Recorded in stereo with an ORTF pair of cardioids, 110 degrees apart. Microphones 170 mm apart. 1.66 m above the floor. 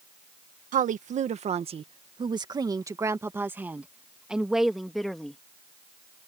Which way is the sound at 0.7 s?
50° right.